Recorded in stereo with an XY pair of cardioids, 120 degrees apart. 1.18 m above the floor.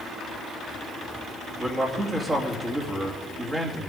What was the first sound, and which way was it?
A man speaking, 30° right.